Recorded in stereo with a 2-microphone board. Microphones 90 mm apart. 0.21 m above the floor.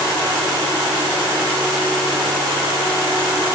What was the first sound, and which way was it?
Only background noise.